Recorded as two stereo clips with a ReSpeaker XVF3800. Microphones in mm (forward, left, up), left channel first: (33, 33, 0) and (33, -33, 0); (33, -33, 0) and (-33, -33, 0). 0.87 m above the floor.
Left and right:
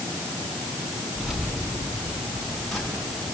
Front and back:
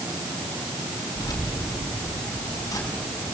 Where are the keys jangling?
5° right, 6.5 m; by 3.2 s 5° left, 6.5 m.